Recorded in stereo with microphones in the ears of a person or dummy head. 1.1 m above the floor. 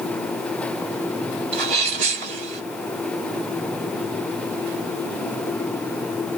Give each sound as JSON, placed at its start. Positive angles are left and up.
{"t": 1.5, "sound": "a sneeze", "side_deg": -45, "distance_m": 1.5}